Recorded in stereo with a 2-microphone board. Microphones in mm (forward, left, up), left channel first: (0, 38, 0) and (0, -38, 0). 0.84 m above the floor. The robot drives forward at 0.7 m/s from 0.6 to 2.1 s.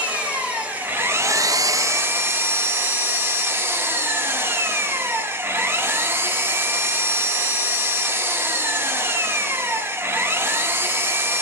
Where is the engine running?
20° right (ahead or behind), 0.7 m; by 11.4 s 30° right (ahead or behind), 0.5 m.